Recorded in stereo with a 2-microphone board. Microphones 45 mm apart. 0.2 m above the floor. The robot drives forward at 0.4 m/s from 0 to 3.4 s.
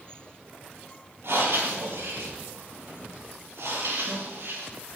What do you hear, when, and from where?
1.2 s breathing: 75° right (ahead or behind), 6 m